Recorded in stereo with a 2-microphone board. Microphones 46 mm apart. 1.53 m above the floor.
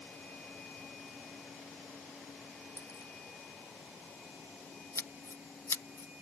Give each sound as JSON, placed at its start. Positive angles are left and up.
{"t": 2.8, "sound": "a dropped coin", "side_deg": 85}
{"t": 5.0, "sound": "scissors", "side_deg": 85}